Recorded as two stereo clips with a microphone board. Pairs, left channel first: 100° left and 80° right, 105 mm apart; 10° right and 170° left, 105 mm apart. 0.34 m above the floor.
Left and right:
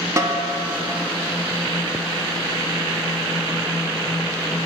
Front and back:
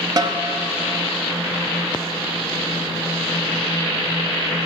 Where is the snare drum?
135° right, 0.5 m.